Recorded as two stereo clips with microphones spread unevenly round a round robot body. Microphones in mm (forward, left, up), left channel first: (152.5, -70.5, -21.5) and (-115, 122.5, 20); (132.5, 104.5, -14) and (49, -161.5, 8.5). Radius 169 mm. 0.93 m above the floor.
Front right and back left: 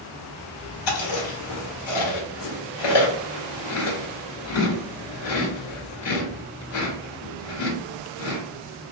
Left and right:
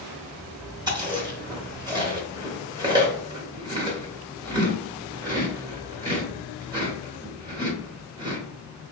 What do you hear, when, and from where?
0.9 s chewing: 30° right, 1.3 m